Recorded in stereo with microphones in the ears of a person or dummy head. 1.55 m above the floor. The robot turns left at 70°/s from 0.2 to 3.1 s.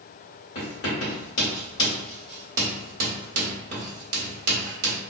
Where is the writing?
55° left (ahead or behind), 1.5 m; by 5.0 s 55° right (ahead or behind), 1.5 m.